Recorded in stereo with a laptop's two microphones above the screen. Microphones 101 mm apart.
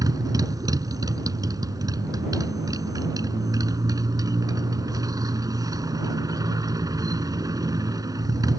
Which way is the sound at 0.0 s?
35° right (ahead or behind).